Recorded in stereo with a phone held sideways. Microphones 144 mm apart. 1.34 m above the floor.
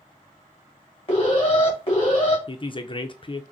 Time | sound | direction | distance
1.1 | an alarm | 40° left (ahead or behind) | 2.5 m
2.5 | a woman speaking | 35° left (ahead or behind) | 0.5 m